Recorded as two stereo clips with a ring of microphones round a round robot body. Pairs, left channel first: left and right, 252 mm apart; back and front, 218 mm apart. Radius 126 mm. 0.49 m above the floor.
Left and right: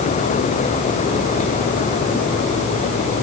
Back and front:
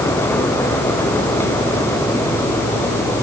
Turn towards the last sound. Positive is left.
No sound to turn to.